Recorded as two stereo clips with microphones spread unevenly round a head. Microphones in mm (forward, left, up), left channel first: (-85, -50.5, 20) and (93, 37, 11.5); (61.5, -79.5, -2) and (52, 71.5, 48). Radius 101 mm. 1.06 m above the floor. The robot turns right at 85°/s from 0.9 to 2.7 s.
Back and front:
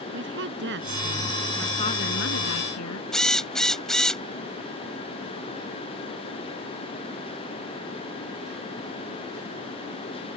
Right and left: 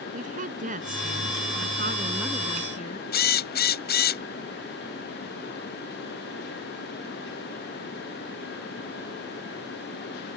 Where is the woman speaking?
60° left; by 3.0 s 145° right.